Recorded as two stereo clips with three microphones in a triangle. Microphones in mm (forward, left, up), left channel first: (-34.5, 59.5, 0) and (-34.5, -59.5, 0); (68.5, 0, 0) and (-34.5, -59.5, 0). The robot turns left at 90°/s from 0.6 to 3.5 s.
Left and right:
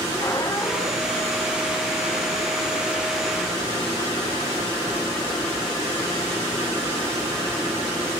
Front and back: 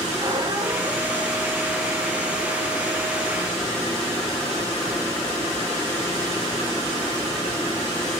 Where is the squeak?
155° left, 1.2 m; by 1.3 s 95° left, 1.2 m.